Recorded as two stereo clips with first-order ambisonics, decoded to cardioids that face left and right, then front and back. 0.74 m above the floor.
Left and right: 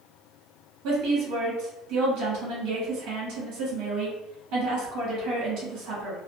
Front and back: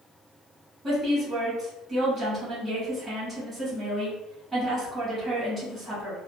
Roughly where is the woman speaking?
Right.